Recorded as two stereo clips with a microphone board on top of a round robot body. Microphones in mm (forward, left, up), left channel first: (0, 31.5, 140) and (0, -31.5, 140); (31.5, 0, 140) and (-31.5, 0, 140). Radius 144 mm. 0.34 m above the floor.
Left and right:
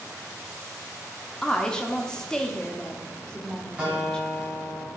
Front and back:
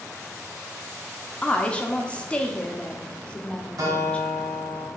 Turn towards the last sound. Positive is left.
turn(degrees=-160)